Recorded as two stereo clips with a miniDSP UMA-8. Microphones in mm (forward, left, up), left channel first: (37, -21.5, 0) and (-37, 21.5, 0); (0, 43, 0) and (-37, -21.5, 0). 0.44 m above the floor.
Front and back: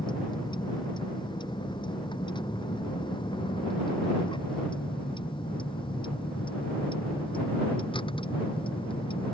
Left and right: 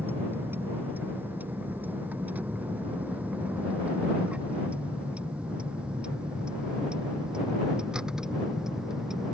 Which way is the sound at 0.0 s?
55° right.